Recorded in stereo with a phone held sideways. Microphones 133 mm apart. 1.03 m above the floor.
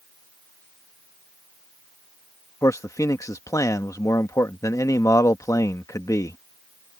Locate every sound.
2.6 s a man speaking: 25° left (ahead or behind)